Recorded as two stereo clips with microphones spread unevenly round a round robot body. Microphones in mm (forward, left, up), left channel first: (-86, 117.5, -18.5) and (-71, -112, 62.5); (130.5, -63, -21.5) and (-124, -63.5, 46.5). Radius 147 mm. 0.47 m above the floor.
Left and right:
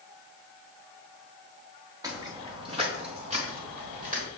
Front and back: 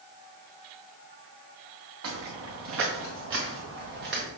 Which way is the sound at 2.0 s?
155° right.